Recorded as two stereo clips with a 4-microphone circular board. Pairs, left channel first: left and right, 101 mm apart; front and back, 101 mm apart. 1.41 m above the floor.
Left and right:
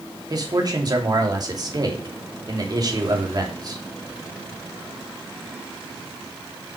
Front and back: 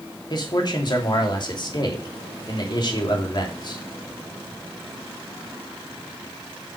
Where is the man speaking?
40° right, 2.5 m.